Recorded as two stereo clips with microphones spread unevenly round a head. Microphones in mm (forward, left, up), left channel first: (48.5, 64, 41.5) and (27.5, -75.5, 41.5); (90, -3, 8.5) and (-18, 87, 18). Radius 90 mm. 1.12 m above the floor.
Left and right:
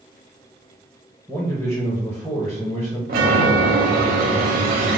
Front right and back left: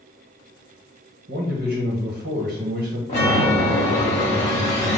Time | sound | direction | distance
1.3 | a man speaking | 175° left | 1.0 m
3.1 | a chime | 95° right | 1.0 m